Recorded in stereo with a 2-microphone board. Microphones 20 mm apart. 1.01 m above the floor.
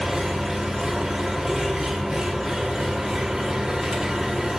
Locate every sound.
0.0 s an engine running: 25° right (ahead or behind), 1.5 m